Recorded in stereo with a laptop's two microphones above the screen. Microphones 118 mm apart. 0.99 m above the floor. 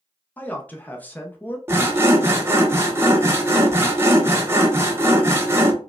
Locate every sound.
0.4 s a man speaking: 15° left (ahead or behind), 0.6 m
1.7 s sawing: 20° right (ahead or behind), 0.7 m